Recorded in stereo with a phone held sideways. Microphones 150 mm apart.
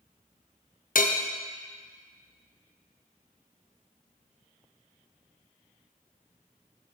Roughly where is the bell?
Left.